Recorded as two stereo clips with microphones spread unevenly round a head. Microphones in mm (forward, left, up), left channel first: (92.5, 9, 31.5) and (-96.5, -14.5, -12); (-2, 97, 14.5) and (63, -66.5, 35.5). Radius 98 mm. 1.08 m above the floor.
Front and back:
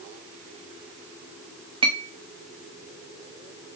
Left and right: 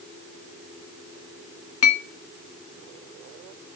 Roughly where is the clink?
Behind left.